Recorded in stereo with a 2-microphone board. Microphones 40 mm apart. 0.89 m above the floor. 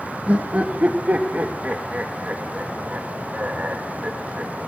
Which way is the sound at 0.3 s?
40° right (ahead or behind).